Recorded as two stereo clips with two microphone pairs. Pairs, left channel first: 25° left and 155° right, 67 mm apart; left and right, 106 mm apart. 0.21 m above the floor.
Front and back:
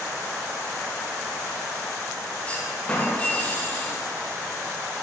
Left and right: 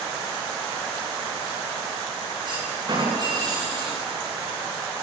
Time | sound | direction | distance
2.5 | a clunk | 45° right | 7.5 m